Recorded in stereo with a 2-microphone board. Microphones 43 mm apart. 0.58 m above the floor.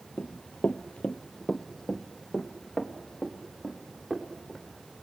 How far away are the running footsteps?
About 0.8 m.